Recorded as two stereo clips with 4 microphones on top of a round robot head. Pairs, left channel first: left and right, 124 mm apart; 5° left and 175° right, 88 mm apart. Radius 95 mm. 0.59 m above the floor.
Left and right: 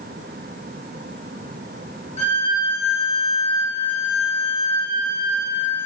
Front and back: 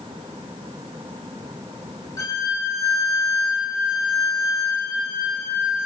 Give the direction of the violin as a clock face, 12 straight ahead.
10 o'clock.